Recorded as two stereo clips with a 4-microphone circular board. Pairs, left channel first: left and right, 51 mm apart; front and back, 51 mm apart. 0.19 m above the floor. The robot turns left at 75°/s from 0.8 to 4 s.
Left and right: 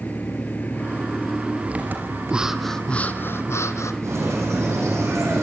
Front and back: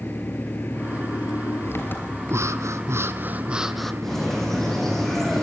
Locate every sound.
0.0 s an engine running: 40° left, 3.5 m; by 5.4 s 160° left, 3.5 m
2.3 s breathing: 160° right, 1.3 m; by 3.9 s 80° left, 1.3 m
4.0 s a bird: 85° right, 7.5 m